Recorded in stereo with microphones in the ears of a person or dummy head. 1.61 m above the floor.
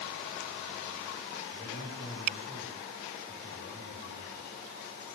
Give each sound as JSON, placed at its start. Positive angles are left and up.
{"t": 1.5, "sound": "a man speaking", "side_deg": 70, "distance_m": 8.0}